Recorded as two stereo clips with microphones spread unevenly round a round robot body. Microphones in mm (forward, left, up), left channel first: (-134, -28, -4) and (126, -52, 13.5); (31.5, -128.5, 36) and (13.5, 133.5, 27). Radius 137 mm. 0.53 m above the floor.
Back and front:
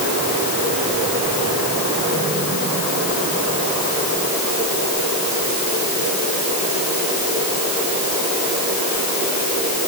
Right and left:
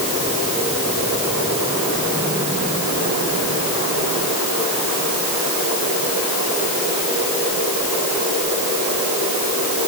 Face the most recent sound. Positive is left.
No sound to turn to.